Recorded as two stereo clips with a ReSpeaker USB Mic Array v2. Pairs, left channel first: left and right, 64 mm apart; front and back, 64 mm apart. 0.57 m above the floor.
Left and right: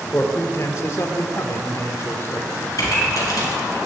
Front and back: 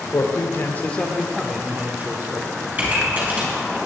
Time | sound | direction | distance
0.1 | a man speaking | 35° left | 1.8 m
2.8 | a pop | 120° left | 4.5 m